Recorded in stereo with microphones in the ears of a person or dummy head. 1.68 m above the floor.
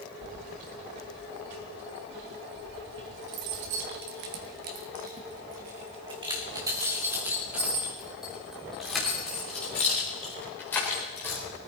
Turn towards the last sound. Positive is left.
turn(degrees=15)  # may be behind; listen again after turning